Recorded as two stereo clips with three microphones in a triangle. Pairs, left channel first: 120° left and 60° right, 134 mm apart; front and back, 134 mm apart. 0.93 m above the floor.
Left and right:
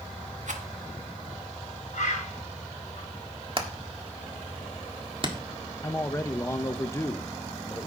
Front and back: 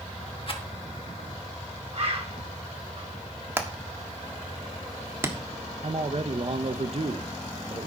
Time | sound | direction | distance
0.5 | a rattle | 45° right | 1.4 m
1.9 | a bird | 140° left | 4 m
3.6 | hammering | 110° right | 1.5 m
5.8 | a man speaking | straight behind | 0.7 m